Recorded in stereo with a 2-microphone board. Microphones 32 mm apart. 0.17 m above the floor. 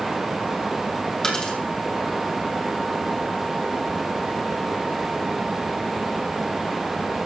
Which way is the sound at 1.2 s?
20° left (ahead or behind).